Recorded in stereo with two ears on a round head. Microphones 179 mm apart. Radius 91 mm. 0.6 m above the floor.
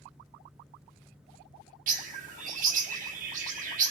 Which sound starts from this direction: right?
A bird, at 1.9 s.